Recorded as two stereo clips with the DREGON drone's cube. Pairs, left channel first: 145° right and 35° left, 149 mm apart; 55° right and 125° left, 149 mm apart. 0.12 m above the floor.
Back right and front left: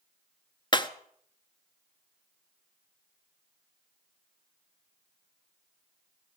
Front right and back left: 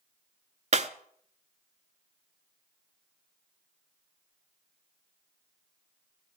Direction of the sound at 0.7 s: 160° left.